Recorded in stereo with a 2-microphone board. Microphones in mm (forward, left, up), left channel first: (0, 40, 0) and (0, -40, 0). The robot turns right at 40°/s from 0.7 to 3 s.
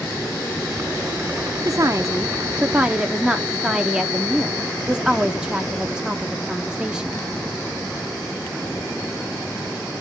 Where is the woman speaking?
70° right, 0.5 m; by 7.3 s 15° right, 0.5 m.